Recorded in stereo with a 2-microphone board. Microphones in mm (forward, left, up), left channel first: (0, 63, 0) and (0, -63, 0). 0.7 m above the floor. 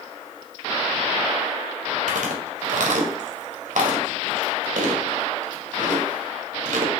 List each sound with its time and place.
2.1 s chewing: 80° right, 2 m